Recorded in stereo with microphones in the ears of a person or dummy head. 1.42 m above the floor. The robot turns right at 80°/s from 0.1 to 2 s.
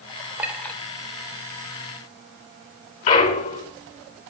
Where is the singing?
I don't hear singing.